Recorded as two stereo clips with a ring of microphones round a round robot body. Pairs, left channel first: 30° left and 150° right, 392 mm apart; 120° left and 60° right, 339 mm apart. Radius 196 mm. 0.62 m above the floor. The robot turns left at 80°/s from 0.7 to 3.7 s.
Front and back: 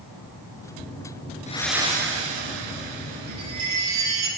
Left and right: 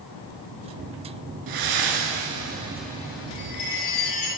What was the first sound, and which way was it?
Breathing, 40° right.